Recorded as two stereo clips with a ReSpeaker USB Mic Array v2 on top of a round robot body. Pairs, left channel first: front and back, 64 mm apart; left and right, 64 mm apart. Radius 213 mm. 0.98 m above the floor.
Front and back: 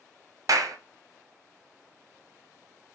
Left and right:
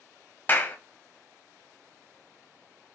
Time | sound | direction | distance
0.5 | a clap | 150° left | 0.7 m